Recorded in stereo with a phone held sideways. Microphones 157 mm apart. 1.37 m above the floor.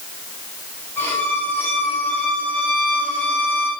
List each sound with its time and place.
1.0 s a violin: 15° left (ahead or behind), 7 m